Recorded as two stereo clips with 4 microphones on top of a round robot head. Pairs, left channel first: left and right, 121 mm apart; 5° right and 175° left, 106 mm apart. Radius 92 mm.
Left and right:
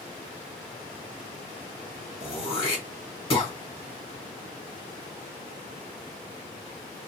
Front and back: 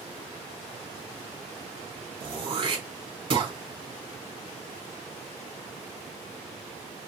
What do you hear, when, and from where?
2.2 s throat clearing: 135° left, 3.5 m